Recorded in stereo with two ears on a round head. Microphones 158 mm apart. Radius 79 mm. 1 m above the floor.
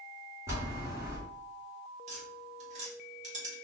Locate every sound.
0.5 s a bell: 15° right (ahead or behind), 1.5 m
2.1 s tapping: 45° right (ahead or behind), 1.6 m